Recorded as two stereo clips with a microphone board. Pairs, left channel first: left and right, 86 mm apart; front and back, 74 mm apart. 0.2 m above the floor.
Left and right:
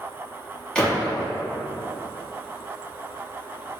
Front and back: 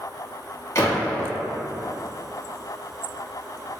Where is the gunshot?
10° left, 1.6 m.